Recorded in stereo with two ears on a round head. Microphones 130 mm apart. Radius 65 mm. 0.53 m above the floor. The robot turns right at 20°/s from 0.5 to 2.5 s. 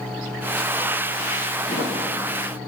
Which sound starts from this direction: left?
A thud, at 1.7 s.